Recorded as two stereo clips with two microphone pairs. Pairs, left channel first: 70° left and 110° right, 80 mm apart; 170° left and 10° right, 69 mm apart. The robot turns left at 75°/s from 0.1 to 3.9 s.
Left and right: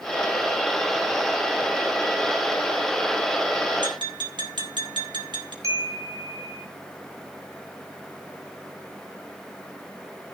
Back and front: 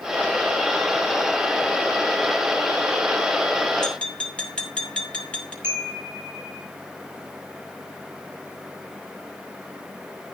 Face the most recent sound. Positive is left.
turn(degrees=-65)